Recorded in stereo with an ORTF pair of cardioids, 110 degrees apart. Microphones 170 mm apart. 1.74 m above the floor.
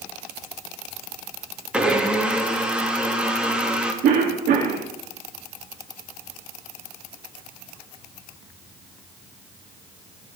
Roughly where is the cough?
Ahead right.